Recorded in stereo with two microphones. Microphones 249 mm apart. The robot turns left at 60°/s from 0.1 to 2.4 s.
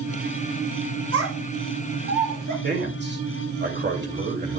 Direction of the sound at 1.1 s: 65° right (ahead or behind).